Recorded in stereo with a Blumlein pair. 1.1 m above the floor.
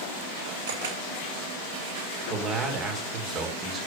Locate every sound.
0.7 s a camera shutter: 60° right, 6.5 m
2.3 s a man speaking: 25° right, 3 m